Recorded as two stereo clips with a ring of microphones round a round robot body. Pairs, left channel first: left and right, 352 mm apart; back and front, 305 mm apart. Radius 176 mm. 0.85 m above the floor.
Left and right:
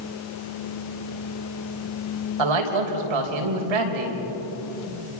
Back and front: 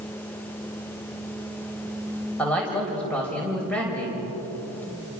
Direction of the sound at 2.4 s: 95° right.